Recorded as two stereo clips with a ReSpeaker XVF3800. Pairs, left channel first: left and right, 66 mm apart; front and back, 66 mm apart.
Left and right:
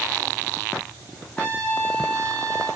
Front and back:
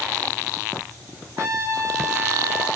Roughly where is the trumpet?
Behind.